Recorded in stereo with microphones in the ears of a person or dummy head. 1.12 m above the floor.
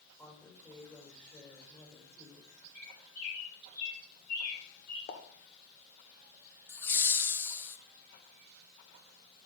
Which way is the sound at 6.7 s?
15° left (ahead or behind).